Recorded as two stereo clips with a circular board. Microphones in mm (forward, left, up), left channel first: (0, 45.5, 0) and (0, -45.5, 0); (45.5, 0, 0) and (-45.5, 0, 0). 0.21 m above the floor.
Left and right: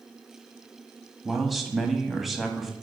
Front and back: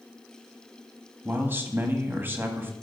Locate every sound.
1.2 s a man speaking: straight behind, 1.0 m